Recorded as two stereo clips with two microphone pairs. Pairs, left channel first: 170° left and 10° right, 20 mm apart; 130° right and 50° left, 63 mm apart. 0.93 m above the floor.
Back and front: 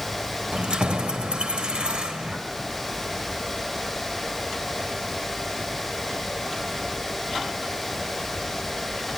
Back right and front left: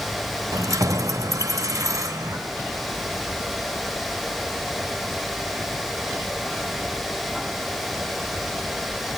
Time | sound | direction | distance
0.5 | keys jangling | 20° left | 1.1 m